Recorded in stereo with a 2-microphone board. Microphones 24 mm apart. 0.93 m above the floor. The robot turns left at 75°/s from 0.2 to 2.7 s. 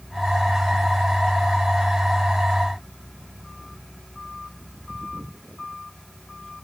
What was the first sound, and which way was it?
Only background noise.